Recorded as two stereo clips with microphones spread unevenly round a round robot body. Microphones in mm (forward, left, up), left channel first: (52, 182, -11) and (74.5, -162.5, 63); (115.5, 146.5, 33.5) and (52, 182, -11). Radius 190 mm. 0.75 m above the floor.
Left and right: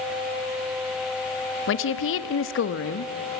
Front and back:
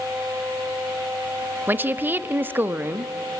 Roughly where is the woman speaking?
Behind left.